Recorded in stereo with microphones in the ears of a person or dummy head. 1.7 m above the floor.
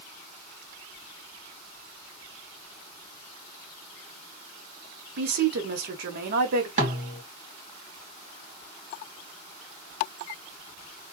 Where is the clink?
I don't hear a clink.